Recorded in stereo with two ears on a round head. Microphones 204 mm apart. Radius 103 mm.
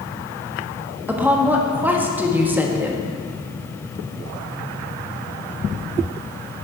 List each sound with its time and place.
1.1 s a woman speaking: 10° right (ahead or behind), 1.4 m